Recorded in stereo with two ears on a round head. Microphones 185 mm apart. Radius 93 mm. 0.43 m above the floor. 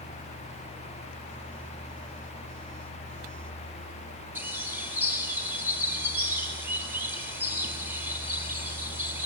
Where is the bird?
10° right (ahead or behind), 3 m.